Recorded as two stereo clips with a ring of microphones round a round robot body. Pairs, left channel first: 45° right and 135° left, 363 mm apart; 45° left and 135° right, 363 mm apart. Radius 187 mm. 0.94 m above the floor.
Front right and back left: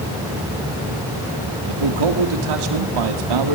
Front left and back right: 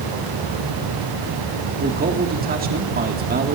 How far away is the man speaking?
About 1.8 m.